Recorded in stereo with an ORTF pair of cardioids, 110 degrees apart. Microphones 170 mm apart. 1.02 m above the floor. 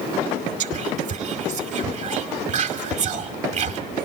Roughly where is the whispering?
Ahead right.